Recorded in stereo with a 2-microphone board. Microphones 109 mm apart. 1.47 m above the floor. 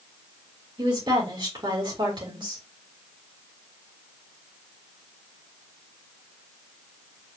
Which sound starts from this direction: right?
A woman speaking, at 0.8 s.